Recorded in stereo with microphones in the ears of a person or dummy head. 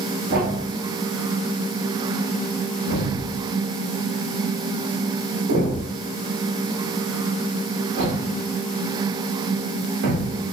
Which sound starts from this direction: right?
A thud, at 0.3 s.